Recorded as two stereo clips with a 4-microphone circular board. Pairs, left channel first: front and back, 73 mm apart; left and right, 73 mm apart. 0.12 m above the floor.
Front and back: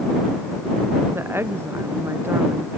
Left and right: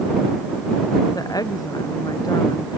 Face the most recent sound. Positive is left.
turn(degrees=120)